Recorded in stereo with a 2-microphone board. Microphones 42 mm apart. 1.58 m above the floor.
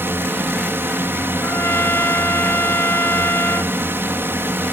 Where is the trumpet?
75° left (ahead or behind).